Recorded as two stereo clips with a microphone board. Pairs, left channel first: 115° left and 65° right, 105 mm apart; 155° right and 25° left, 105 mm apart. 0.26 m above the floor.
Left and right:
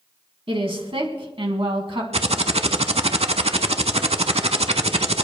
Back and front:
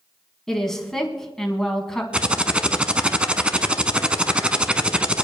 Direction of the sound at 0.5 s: 75° right.